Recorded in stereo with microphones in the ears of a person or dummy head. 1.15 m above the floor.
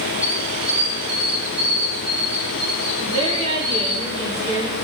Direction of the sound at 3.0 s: 35° right (ahead or behind).